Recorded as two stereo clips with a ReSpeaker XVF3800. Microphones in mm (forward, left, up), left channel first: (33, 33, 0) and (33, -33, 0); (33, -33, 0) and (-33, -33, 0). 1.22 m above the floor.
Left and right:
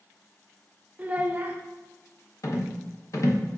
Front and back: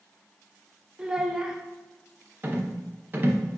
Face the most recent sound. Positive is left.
turn(degrees=125)